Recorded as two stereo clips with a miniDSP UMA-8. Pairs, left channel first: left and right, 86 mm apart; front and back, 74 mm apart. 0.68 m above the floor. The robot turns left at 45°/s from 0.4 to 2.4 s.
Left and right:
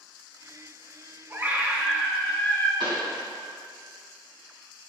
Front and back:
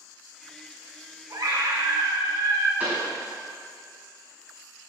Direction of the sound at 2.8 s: 115° right.